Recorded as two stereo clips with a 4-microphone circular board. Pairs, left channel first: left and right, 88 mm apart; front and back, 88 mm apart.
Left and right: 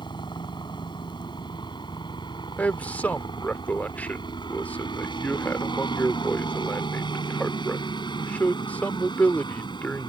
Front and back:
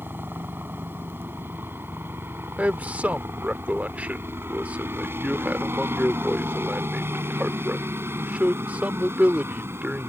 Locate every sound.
0.0 s a helicopter: 115° left
2.6 s a man speaking: 130° left